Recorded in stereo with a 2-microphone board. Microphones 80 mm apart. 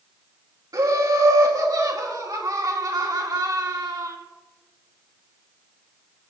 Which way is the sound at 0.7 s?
55° right (ahead or behind).